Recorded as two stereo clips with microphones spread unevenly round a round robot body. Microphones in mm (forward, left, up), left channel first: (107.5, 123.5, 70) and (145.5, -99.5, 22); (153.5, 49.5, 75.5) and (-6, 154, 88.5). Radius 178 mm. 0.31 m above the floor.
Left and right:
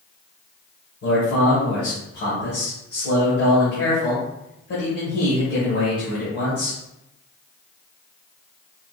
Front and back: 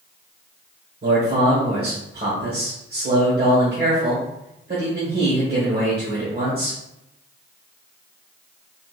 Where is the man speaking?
145° left, 1.3 m.